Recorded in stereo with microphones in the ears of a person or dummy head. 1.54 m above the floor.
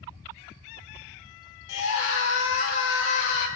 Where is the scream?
70° left (ahead or behind), 5.5 m.